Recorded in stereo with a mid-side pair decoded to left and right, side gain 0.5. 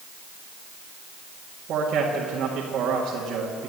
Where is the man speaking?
65° right, 1.9 m.